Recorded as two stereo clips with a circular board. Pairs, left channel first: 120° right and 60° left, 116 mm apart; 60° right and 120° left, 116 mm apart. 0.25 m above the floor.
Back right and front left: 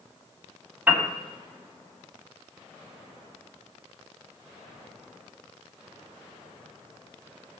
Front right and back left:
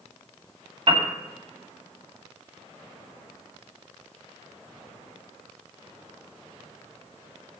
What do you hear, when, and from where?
0.9 s a piano: 130° left, 1.6 m